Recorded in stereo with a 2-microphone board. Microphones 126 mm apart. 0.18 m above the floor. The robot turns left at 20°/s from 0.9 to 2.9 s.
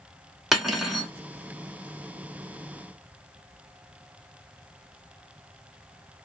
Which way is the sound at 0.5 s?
Centre (ahead or behind).